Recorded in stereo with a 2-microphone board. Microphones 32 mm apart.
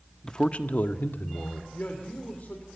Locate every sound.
0.2 s a man speaking: 20° left (ahead or behind), 1.1 m; by 1.6 s 75° left (ahead or behind), 1.9 m
1.7 s a man speaking: 55° left (ahead or behind), 2.5 m